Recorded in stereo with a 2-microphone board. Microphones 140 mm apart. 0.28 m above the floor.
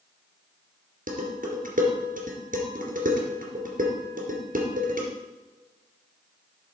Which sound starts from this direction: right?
Dishes clattering, at 1.1 s.